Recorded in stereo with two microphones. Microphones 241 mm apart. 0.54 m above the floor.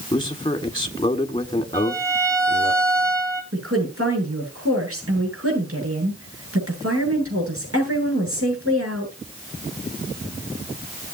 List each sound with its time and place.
0.1 s a man speaking: 20° left (ahead or behind), 1.5 m
1.7 s a violin: 15° right (ahead or behind), 2.5 m
3.5 s a woman speaking: 65° right (ahead or behind), 8.5 m